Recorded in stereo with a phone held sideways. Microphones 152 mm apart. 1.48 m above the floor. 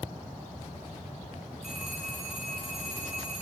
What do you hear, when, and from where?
1.6 s a phone ringing: 5° right (ahead or behind), 4 m